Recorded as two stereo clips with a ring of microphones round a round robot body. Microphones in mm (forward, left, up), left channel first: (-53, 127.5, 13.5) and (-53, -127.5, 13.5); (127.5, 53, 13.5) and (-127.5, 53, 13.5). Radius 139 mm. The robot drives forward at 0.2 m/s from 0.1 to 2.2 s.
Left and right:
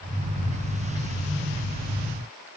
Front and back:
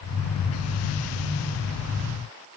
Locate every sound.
Only background noise.